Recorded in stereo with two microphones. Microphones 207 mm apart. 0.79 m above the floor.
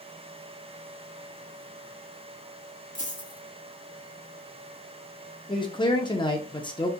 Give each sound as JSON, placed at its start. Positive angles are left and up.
{"t": 3.0, "sound": "a dropped coin", "side_deg": 40, "distance_m": 1.0}
{"t": 5.5, "sound": "a man speaking", "side_deg": 25, "distance_m": 0.5}